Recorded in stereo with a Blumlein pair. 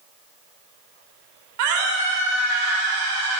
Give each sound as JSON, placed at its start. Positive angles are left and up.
{"t": 1.6, "sound": "a scream", "azimuth_deg": -50, "distance_m": 4.0}